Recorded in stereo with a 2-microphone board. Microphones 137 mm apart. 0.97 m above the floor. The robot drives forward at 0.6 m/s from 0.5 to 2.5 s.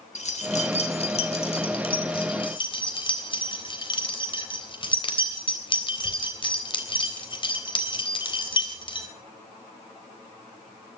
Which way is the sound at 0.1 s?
55° left (ahead or behind).